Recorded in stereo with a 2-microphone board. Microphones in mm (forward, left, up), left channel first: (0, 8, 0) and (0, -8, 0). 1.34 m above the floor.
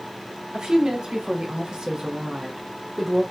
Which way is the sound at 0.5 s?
85° right.